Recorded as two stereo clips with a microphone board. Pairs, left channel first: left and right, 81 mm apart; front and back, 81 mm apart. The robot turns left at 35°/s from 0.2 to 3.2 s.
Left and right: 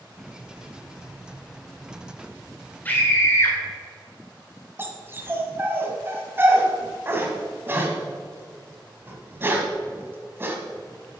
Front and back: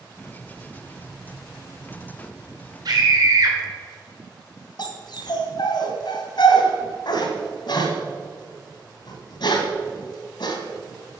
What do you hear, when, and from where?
2.9 s a scream: 155° left, 1.8 m; by 3.6 s 145° left, 1.8 m
4.8 s a dog barking: 30° right, 1.7 m